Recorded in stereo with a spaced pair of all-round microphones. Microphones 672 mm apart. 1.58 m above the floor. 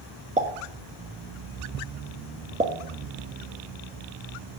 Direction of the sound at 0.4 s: 10° right (ahead or behind).